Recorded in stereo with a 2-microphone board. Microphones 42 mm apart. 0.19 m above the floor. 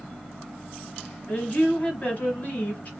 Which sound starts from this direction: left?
A woman speaking, at 1.3 s.